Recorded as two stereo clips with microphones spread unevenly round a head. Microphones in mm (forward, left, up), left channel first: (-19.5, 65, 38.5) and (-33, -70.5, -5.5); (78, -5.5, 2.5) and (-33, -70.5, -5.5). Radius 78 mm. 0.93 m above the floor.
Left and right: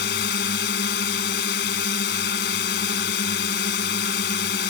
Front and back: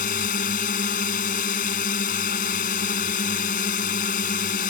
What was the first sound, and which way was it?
A drone, 70° left.